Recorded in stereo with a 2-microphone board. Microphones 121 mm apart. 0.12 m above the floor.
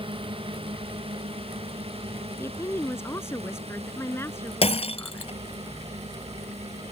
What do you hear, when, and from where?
0.0 s a drone: 50° right (ahead or behind); by 6.9 s 65° right (ahead or behind)
2.4 s a woman speaking: 20° left (ahead or behind)
4.6 s breaking glass: 60° left (ahead or behind)